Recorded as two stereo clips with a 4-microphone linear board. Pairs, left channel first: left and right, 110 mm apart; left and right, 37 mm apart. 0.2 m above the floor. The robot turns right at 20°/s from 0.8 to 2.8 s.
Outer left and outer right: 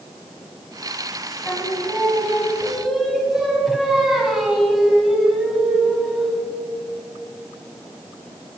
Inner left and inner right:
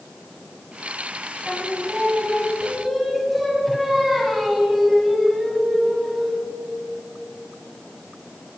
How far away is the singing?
About 1.6 m.